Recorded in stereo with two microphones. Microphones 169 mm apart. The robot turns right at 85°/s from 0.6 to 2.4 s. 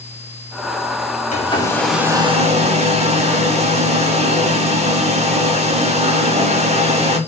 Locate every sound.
1.3 s a hair dryer: 130° left, 0.5 m; by 7.2 s 135° right, 0.5 m